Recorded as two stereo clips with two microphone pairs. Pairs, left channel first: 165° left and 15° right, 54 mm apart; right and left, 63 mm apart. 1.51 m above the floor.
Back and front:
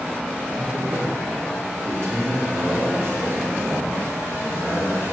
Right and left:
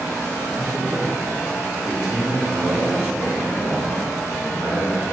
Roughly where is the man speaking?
Ahead left.